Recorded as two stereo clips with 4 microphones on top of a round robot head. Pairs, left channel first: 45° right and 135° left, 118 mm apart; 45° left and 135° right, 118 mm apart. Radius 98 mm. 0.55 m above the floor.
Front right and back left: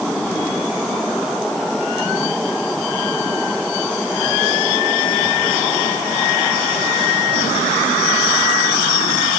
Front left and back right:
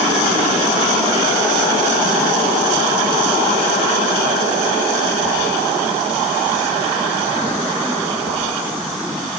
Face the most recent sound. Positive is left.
No sound to turn to.